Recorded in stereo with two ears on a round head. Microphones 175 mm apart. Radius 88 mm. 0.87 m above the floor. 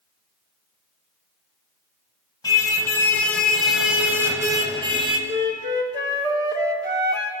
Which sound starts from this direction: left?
A car horn, at 2.4 s.